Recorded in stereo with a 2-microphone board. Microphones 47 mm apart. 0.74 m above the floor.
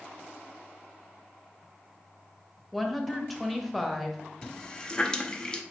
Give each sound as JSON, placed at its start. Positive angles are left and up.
{"t": 2.7, "sound": "a woman speaking", "side_deg": 0, "distance_m": 0.7}
{"t": 4.4, "sound": "a running tap", "side_deg": 15, "distance_m": 0.5}